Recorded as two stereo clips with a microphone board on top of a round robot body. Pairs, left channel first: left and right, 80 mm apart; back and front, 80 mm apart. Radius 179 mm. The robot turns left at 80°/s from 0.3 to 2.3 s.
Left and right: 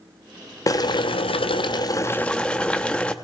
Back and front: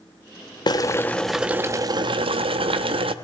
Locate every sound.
0.7 s boiling: 140° left, 0.5 m; by 3.1 s 10° left, 0.5 m